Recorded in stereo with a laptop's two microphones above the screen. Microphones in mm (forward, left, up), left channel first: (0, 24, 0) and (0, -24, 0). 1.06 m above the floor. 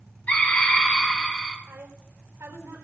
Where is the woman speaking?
75° right (ahead or behind), 4 m.